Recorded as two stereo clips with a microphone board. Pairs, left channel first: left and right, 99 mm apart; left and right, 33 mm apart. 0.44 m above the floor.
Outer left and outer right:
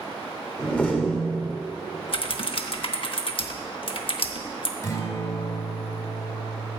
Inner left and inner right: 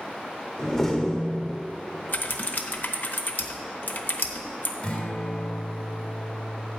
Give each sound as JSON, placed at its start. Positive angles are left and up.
{"t": 0.6, "sound": "a door slam", "side_deg": 15, "distance_m": 1.1}
{"t": 2.1, "sound": "typing on a keyboard", "side_deg": 60, "distance_m": 0.7}
{"t": 4.8, "sound": "a guitar", "side_deg": 35, "distance_m": 2.5}